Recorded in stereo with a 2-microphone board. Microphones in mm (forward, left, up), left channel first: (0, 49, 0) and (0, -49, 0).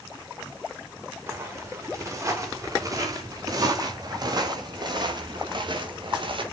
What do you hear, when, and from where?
1.3 s footsteps: 25° right (ahead or behind), 5.5 m; by 6.4 s 55° right (ahead or behind), 4 m